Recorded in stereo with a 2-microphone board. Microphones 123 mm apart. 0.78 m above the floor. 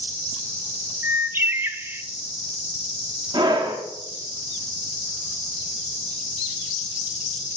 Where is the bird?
15° right (ahead or behind), 0.5 m.